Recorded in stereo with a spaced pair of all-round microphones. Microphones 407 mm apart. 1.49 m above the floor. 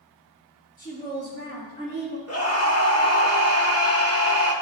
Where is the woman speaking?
10° left (ahead or behind), 3 m; by 2.2 s 20° left (ahead or behind), 2.5 m.